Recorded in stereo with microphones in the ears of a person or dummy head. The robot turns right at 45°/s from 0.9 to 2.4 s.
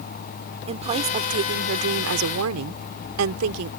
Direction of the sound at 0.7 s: 150° right.